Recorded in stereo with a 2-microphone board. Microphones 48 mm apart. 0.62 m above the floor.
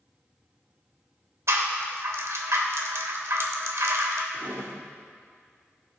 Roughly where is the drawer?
Right.